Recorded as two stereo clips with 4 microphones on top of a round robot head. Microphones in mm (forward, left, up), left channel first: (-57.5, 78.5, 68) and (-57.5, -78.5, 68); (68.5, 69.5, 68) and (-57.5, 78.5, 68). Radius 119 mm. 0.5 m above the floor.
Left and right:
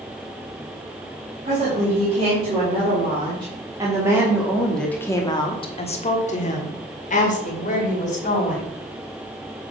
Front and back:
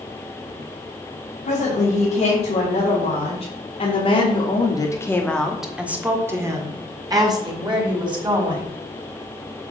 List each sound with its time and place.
1.4 s a woman speaking: 40° right, 3.5 m; by 8.7 s 125° left, 3.5 m